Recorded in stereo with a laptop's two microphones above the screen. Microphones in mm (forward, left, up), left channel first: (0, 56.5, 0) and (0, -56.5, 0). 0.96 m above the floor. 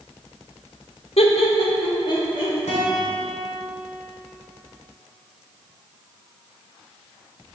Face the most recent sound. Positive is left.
turn(degrees=80)